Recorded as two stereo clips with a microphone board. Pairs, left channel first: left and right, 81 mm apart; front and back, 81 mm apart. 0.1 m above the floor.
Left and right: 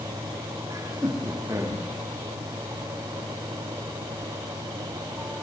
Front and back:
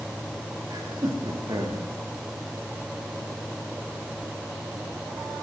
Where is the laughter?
140° right, 8 m.